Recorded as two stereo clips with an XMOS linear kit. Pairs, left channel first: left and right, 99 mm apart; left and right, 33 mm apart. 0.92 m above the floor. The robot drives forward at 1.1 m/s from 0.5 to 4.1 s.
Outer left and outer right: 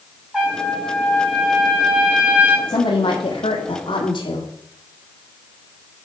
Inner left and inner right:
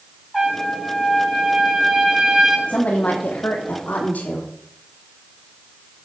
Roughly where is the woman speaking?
Left.